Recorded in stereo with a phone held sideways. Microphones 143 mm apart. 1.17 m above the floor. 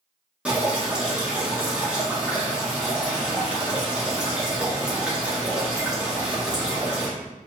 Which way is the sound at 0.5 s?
10° right (ahead or behind).